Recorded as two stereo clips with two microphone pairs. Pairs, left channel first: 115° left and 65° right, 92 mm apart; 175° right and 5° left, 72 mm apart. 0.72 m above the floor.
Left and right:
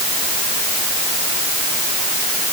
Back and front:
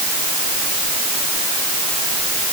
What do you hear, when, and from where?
Only background noise.